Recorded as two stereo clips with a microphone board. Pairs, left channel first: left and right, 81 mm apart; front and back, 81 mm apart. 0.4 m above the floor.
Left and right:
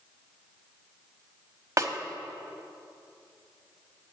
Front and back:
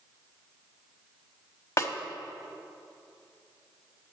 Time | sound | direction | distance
1.8 | a snare drum | 40° right | 1.0 m